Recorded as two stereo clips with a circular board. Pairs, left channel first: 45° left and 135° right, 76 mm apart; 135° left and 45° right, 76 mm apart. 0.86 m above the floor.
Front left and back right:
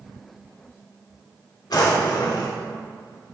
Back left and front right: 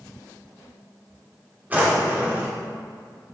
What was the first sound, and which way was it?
A drawer, 20° left.